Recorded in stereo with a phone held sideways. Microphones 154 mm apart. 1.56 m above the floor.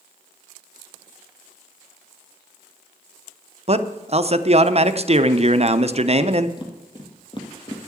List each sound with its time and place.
3.7 s a man speaking: 45° right (ahead or behind), 0.6 m
6.6 s footsteps: 30° left (ahead or behind), 2 m